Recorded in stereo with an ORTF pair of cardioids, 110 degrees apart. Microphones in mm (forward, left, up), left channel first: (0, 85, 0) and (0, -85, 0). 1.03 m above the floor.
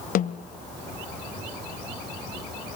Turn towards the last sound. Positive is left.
turn(degrees=60)